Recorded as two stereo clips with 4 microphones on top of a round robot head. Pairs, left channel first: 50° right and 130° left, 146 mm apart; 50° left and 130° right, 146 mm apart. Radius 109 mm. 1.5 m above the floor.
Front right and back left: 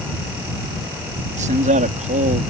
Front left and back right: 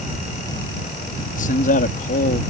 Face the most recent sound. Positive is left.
turn(degrees=90)